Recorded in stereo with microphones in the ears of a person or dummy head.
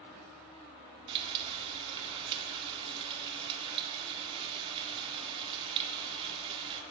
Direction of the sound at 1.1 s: 25° right (ahead or behind).